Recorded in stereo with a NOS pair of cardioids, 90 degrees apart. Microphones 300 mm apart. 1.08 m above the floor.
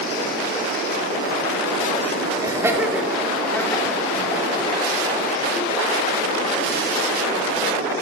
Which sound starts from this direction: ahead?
Laughter, at 2.4 s.